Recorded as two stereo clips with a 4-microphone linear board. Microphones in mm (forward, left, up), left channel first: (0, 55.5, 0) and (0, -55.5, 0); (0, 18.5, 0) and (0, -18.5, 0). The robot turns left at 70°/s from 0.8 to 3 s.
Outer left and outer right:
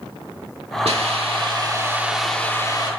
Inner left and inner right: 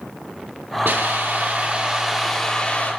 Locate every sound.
0.8 s a hiss: 85° right, 3 m; by 2.9 s 135° left, 3 m